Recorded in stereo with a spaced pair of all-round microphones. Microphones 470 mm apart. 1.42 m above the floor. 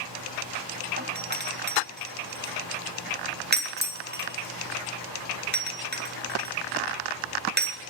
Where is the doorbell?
20° right (ahead or behind), 3.5 m.